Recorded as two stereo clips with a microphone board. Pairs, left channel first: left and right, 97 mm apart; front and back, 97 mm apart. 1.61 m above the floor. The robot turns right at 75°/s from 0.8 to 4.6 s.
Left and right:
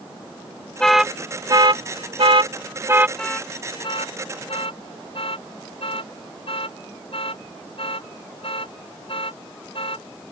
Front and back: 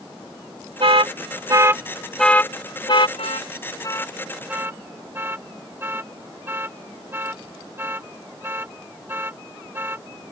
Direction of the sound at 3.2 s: 5° left.